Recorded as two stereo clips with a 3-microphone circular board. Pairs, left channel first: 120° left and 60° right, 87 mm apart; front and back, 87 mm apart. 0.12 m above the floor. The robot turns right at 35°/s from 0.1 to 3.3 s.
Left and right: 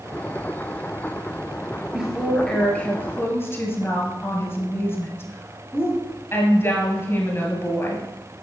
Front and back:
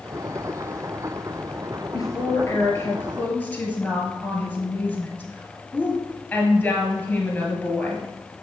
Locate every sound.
1.9 s a woman speaking: 20° left, 1.8 m; by 8.1 s 70° left, 1.8 m